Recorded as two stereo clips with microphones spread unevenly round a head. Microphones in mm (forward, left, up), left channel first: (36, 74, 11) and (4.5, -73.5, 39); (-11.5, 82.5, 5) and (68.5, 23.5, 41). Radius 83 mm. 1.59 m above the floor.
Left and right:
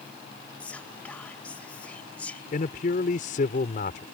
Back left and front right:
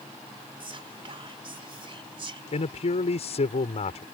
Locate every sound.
0.6 s whispering: 5° right
2.5 s a man speaking: 125° left